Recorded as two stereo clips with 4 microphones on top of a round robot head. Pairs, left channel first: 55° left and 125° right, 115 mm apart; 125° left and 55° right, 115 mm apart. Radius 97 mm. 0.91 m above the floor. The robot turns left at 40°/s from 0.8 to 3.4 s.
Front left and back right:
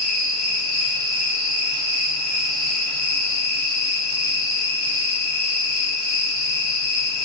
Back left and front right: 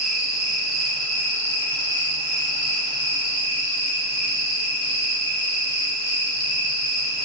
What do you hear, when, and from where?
0.0 s an insect: 145° right, 3.5 m; by 7.3 s 110° left, 3.5 m